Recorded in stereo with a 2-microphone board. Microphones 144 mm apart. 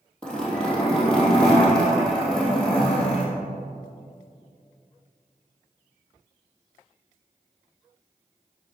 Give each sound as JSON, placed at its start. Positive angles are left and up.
{"t": 0.2, "sound": "a zipper", "side_deg": 5, "distance_m": 3.0}